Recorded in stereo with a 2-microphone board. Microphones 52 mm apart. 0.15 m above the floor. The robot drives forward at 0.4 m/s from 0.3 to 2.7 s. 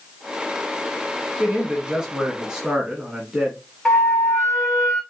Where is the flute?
5° left (ahead or behind), 2 m.